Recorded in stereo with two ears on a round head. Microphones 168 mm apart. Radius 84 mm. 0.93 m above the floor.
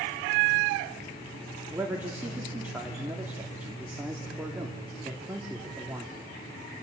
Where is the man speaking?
10° right (ahead or behind), 2.5 m.